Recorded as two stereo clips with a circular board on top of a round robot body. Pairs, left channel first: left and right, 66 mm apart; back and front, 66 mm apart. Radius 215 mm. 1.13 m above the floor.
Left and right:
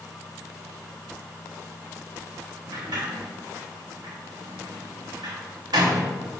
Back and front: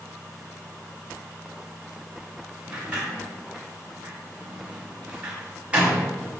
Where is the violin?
I don't hear a violin.